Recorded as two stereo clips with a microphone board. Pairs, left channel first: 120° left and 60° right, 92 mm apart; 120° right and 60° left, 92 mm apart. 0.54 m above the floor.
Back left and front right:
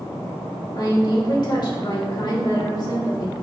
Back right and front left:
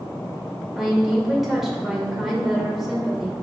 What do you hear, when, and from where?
0.8 s a woman speaking: 145° left, 2 m